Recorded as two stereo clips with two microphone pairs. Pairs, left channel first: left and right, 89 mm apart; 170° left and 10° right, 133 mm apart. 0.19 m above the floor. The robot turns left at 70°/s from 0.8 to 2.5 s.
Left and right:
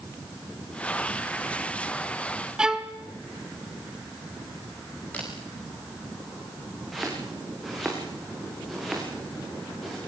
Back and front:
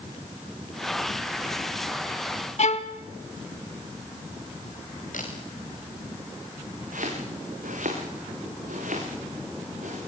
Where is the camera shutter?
160° left, 6 m.